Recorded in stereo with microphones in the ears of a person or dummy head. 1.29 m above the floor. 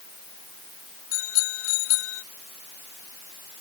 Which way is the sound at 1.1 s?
80° left.